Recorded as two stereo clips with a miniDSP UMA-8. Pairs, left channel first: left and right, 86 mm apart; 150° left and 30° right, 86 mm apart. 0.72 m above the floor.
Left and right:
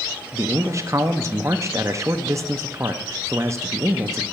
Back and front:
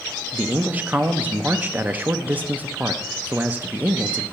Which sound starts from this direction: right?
A man speaking, at 0.3 s.